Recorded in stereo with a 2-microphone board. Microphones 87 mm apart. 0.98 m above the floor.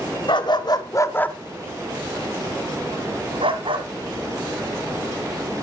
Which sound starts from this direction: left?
A dog barking, at 0.3 s.